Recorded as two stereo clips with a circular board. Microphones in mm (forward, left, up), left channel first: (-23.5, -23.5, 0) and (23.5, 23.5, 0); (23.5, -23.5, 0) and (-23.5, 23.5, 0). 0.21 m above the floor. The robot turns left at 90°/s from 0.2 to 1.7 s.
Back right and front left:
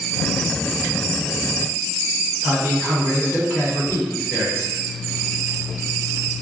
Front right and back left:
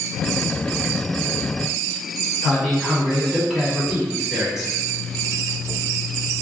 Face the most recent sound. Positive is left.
turn(degrees=60)